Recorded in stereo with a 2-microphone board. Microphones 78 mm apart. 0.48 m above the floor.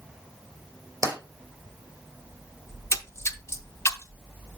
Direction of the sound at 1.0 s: 45° right (ahead or behind).